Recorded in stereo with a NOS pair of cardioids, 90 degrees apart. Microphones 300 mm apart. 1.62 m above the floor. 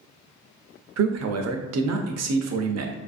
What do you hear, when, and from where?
1.0 s a man speaking: 60° right, 0.7 m